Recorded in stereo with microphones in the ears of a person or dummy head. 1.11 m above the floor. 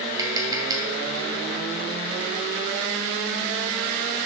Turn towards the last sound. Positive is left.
turn(degrees=-20)  # may be behind; listen again after turning